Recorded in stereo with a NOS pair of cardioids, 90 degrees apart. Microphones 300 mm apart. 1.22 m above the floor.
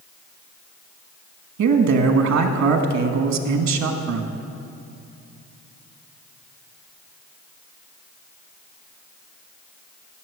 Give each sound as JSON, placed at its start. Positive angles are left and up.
{"t": 1.6, "sound": "a man speaking", "azimuth_deg": -65, "distance_m": 1.6}